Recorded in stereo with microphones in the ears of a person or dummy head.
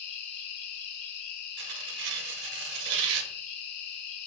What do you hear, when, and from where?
0.0 s an insect: 55° left (ahead or behind), 0.7 m
1.6 s tearing paper: 60° right (ahead or behind), 0.5 m